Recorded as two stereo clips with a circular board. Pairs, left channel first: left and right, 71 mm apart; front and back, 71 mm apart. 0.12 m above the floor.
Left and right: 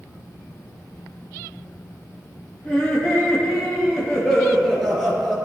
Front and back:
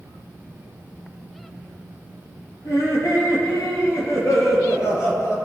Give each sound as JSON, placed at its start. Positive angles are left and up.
{"t": 2.6, "sound": "laughter", "azimuth_deg": 20, "distance_m": 3.0}